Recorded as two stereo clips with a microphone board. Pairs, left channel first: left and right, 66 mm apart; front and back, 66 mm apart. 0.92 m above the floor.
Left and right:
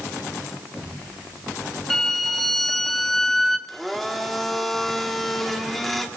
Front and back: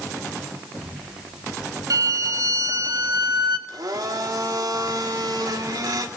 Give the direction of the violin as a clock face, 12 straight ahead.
6 o'clock.